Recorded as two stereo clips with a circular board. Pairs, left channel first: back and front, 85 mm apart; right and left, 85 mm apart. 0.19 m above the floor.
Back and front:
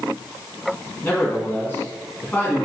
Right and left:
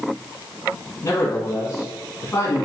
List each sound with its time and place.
1.0 s a man speaking: 125° right, 1.9 m